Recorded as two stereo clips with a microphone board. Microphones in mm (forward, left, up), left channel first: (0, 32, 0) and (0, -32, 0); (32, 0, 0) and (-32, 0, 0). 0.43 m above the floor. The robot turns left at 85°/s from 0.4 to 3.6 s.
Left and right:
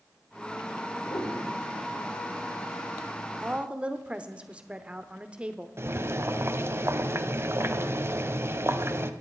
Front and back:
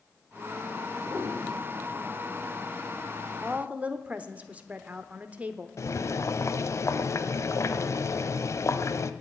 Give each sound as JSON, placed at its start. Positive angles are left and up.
{"t": 1.1, "sound": "a piano", "azimuth_deg": 130, "distance_m": 8.5}
{"t": 3.4, "sound": "a woman speaking", "azimuth_deg": -120, "distance_m": 0.9}
{"t": 5.8, "sound": "boiling", "azimuth_deg": -40, "distance_m": 0.7}